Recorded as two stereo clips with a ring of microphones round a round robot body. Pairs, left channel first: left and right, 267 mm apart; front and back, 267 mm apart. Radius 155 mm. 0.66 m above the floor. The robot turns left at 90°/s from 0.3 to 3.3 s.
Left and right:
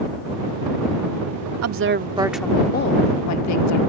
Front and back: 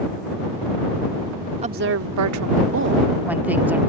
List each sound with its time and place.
1.6 s a woman speaking: 110° right; by 3.8 s 95° left